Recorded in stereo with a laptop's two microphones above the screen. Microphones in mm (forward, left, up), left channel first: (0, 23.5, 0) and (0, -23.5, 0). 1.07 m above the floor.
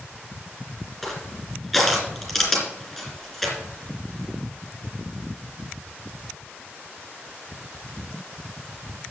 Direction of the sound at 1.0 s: Centre (ahead or behind).